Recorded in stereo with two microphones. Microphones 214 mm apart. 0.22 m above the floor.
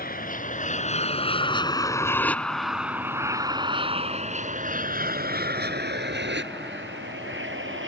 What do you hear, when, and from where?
0.0 s an aircraft: 45° left (ahead or behind); by 7.9 s 65° right (ahead or behind)